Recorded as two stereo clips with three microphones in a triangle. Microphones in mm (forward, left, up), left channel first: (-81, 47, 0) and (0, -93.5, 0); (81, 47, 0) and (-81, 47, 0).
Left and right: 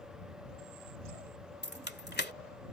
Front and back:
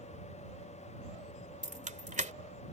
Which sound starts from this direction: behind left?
Keys jangling, at 1.6 s.